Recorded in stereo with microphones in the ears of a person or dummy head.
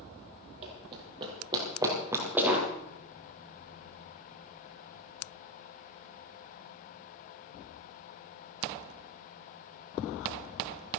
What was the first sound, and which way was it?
Running footsteps, 35° right (ahead or behind).